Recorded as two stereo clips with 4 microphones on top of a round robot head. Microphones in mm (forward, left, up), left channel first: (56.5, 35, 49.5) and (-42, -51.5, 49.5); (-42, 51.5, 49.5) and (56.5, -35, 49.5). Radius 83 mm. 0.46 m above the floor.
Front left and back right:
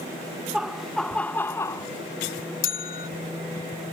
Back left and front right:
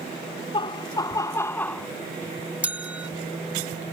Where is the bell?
40° left.